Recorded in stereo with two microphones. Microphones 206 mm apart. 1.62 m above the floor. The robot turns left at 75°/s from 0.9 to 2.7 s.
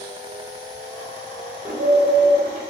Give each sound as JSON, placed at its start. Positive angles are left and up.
{"t": 1.6, "sound": "a bird", "azimuth_deg": -10, "distance_m": 3.5}